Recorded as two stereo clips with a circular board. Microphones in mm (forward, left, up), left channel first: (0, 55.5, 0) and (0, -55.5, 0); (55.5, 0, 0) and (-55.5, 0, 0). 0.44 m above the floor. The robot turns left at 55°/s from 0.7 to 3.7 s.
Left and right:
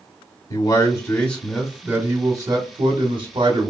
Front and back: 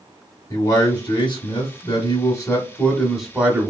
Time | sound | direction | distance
0.5 | a man speaking | 45° left | 1.1 m